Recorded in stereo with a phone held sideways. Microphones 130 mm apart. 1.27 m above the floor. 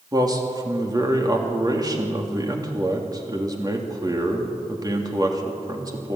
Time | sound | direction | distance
0.1 | a man speaking | 30° right (ahead or behind) | 3 m